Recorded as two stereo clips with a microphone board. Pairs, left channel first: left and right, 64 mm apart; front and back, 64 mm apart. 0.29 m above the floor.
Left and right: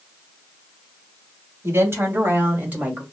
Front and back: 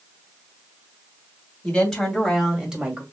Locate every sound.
1.6 s a woman speaking: 75° right, 2 m; by 3.0 s 130° right, 1.6 m